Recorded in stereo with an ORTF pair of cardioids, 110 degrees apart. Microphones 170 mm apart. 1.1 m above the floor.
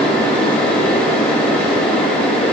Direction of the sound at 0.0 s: 5° left.